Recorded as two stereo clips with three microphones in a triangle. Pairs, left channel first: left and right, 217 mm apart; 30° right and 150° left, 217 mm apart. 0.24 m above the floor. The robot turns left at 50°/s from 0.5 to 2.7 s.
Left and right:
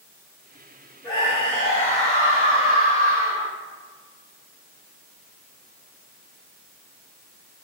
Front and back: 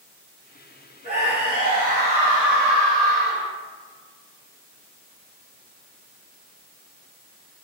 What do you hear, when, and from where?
1.0 s a scream: 140° left, 1.7 m; by 3.5 s 55° left, 1.7 m